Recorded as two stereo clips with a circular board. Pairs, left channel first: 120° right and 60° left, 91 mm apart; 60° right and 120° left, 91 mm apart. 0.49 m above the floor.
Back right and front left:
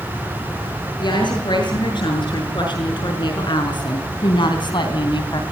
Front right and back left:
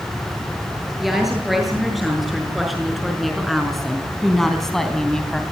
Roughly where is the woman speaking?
Behind right.